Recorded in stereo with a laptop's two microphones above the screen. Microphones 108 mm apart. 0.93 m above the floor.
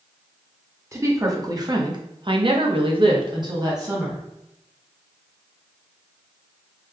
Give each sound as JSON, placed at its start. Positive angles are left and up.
{"t": 0.9, "sound": "a woman speaking", "side_deg": -25, "distance_m": 1.4}